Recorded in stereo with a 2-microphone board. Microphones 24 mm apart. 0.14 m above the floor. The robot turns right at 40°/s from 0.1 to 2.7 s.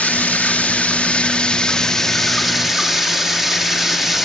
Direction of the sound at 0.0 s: 85° left.